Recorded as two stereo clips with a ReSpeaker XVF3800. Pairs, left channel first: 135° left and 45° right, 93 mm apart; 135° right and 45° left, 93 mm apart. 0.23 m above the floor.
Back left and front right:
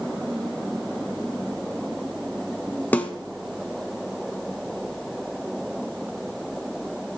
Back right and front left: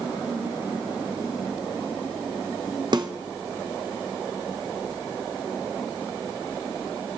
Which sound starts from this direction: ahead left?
A snare drum, at 2.9 s.